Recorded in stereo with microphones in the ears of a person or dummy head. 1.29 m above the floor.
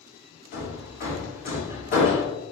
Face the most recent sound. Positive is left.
turn(degrees=45)  # may be behind; listen again after turning